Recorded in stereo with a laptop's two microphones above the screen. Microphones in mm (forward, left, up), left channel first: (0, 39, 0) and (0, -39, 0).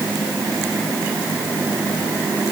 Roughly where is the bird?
No bird in this recording.